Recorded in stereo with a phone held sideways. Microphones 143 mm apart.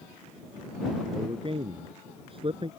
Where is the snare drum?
No snare drum in this recording.